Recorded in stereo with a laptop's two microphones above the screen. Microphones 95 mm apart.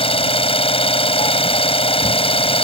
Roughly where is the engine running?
Left.